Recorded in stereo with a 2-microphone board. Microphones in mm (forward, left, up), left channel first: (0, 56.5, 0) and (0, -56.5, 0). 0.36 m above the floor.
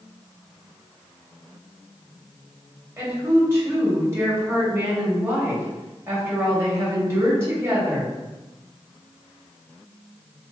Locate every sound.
3.0 s a woman speaking: 25° right (ahead or behind), 1.5 m